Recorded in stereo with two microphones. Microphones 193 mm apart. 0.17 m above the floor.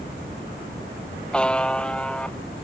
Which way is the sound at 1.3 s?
5° left (ahead or behind).